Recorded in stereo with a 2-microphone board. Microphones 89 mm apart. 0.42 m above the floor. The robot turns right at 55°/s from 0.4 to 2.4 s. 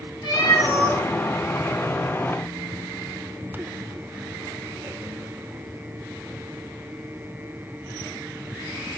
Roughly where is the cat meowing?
Ahead left.